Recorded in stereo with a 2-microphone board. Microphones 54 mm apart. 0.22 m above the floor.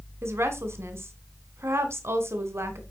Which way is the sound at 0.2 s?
55° right (ahead or behind).